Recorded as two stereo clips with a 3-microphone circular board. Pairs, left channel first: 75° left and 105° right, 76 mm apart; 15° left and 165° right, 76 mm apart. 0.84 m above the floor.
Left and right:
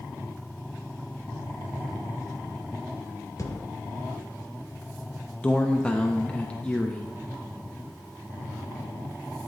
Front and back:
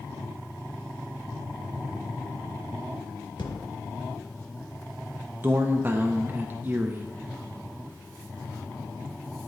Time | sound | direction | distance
3.4 | a thud | 30° left | 0.7 m
5.4 | a man speaking | 140° left | 0.5 m